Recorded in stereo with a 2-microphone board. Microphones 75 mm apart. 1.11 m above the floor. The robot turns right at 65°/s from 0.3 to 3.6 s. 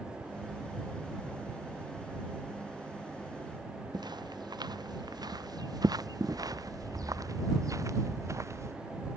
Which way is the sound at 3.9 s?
75° right (ahead or behind).